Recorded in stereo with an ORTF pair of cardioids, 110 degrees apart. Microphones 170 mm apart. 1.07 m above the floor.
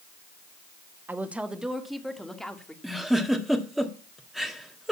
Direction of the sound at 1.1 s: 10° right.